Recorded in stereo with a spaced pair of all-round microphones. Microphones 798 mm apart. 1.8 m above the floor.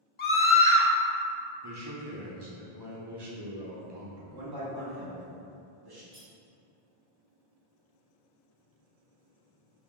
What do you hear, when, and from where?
0.2 s a scream: 40° left (ahead or behind), 0.6 m
1.6 s a man speaking: 30° right (ahead or behind), 0.8 m
4.3 s a man speaking: 30° right (ahead or behind), 0.8 m
6.1 s cutlery clinking: 10° left (ahead or behind), 1.4 m